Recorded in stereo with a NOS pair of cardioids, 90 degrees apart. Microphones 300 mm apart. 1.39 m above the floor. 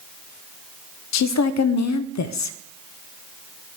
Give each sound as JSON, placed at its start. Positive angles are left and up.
{"t": 1.1, "sound": "a woman speaking", "azimuth_deg": 65, "distance_m": 0.5}